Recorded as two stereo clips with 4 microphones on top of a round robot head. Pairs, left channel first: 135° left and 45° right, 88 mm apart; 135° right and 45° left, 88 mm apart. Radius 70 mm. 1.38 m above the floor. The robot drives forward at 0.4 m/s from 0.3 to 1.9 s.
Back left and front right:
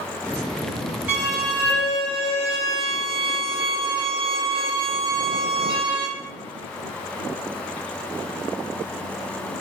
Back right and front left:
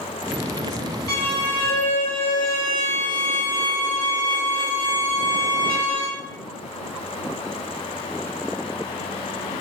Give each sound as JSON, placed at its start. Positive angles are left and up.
{"t": 1.1, "sound": "a violin", "azimuth_deg": -105, "distance_m": 0.8}